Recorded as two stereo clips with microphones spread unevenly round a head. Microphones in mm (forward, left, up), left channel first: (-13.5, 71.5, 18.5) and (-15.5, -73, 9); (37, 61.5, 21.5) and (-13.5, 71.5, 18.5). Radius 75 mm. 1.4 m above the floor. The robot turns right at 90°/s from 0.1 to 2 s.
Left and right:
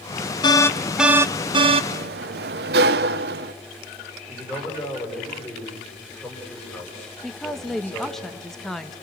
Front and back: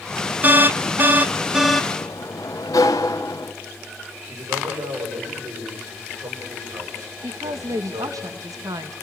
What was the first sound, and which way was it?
An alarm, 140° left.